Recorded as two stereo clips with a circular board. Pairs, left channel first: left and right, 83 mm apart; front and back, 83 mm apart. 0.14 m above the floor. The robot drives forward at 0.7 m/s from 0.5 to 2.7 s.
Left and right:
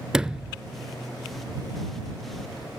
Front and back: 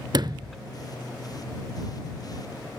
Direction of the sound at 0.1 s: 170° right.